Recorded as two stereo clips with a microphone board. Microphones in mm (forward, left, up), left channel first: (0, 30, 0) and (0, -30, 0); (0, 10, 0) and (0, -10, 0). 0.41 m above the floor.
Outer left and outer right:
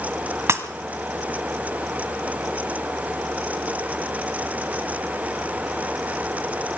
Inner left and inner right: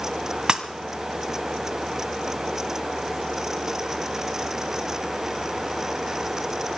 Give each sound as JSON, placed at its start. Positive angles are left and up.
{"t": 0.5, "sound": "breaking glass", "side_deg": -45, "distance_m": 1.6}